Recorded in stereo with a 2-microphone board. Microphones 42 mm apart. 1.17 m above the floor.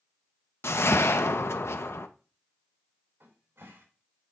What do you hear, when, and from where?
0.6 s a whoosh: 85° left, 0.6 m
3.2 s a cupboard door: 80° right, 3 m